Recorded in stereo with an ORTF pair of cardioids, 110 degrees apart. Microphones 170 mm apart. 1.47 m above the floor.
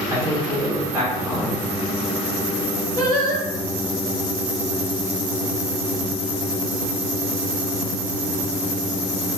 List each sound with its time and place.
0.1 s a man speaking: 25° right, 1.9 m
3.0 s singing: 25° left, 1.6 m